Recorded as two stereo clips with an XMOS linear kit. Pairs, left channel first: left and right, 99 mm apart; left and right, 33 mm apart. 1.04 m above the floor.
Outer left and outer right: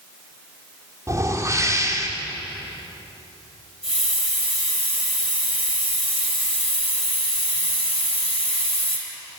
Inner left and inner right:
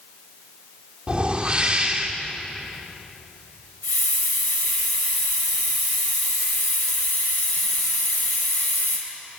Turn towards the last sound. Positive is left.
turn(degrees=75)  # may be behind; listen again after turning